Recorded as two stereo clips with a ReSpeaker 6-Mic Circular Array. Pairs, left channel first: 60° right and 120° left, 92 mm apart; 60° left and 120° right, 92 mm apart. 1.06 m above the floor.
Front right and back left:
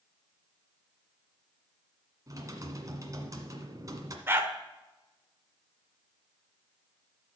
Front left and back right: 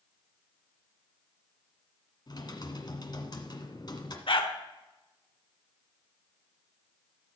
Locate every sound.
2.3 s typing on a keyboard: 80° left, 1.5 m
4.3 s a dog barking: 55° left, 1.4 m